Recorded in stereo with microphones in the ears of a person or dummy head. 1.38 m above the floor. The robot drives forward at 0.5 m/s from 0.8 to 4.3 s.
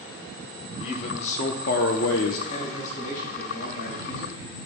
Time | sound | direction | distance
0.8 | a man speaking | 35° left (ahead or behind) | 1.1 m
2.5 | a man speaking | 45° left (ahead or behind) | 3.5 m